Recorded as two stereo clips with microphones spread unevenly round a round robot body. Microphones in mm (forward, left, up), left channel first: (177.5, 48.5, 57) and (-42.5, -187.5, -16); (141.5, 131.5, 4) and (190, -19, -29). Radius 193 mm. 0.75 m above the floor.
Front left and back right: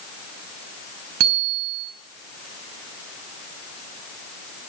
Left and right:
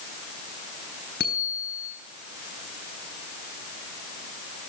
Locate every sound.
1.2 s a bicycle bell: 170° left, 4 m